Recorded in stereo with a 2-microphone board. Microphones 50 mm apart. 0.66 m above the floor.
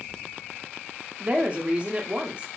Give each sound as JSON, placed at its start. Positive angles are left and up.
{"t": 1.2, "sound": "a woman speaking", "side_deg": -30, "distance_m": 0.6}